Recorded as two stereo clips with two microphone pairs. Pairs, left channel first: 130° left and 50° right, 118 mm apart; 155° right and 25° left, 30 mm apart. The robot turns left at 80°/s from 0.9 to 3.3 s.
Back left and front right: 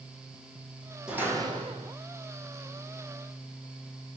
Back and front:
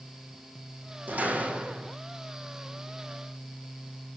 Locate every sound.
1.1 s a door slam: 30° left, 4 m; by 1.9 s 40° right, 4 m